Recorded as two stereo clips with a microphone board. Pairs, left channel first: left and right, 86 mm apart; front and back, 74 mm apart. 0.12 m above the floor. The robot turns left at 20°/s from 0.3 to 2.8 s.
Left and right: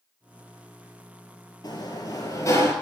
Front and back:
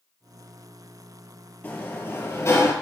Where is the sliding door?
60° left, 1.2 m; by 2.7 s 40° left, 1.2 m.